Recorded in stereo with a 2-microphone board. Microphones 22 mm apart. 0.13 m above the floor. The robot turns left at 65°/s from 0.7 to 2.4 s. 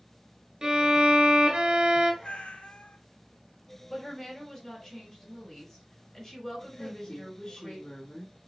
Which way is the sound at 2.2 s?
80° left.